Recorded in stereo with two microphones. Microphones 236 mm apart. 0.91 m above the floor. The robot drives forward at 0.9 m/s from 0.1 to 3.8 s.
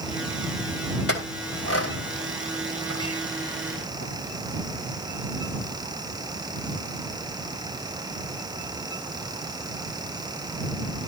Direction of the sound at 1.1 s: 70° left (ahead or behind).